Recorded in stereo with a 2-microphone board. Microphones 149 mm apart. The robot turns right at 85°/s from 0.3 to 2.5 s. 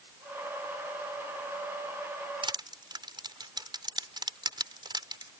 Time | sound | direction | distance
2.4 | crushing | 35° right (ahead or behind) | ?